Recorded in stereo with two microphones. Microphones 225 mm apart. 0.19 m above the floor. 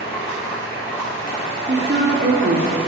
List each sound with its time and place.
0.0 s running water: 10° left (ahead or behind), 4.5 m
1.7 s a woman speaking: 50° right (ahead or behind), 3 m